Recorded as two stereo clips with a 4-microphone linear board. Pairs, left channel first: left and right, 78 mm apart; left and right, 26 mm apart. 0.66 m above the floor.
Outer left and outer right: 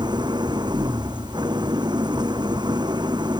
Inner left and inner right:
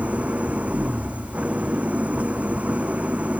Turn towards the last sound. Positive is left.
turn(degrees=-75)  # may be behind; listen again after turning